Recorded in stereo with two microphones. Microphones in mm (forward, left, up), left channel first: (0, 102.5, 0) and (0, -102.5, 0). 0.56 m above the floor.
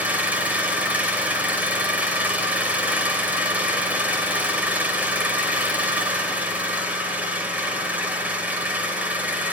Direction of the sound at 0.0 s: 5° right (ahead or behind).